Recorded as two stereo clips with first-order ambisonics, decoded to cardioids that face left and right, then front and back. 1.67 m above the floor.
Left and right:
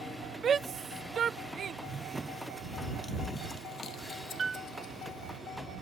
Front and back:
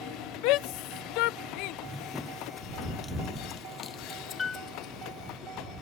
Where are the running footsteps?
105° right; by 5.4 s 55° left.